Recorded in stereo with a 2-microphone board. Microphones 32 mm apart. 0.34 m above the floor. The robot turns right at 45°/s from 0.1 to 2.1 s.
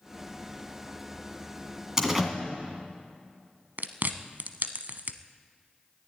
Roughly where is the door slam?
Right.